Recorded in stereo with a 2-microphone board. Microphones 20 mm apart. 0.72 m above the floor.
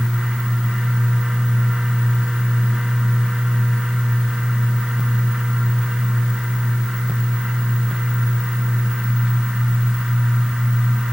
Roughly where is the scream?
No scream in this recording.